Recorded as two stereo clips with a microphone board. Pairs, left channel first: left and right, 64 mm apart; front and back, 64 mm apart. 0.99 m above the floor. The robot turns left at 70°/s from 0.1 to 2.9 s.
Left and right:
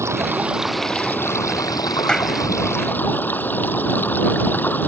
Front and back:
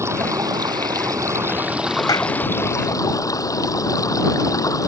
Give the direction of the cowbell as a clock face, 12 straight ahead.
I don't hear a cowbell.